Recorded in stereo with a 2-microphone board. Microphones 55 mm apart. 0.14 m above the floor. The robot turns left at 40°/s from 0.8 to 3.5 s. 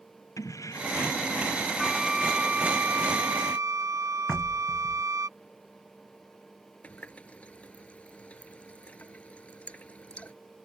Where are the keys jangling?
80° left; by 1.7 s 45° left.